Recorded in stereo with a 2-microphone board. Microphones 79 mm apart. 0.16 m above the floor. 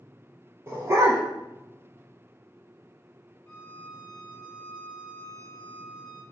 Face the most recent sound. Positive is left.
turn(degrees=25)  # may be behind; listen again after turning